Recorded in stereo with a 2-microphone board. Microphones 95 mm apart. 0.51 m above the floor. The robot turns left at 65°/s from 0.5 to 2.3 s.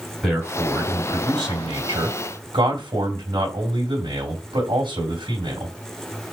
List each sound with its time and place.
0.2 s a man speaking: straight ahead, 2.5 m; by 5.7 s 115° right, 2.5 m